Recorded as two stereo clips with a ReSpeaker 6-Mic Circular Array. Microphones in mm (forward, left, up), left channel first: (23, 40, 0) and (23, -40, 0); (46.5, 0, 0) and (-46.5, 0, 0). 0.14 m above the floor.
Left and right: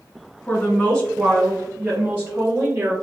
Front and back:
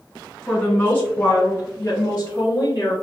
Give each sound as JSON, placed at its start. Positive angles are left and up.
{"t": 0.5, "sound": "a woman speaking", "azimuth_deg": 70, "distance_m": 1.4}